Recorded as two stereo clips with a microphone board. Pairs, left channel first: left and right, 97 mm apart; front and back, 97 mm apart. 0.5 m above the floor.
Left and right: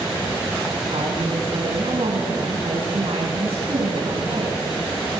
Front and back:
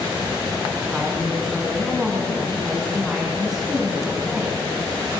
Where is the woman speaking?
95° right, 4 m.